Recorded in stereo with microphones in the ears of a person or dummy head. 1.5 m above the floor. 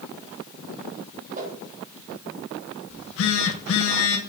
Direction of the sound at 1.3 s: 40° right (ahead or behind).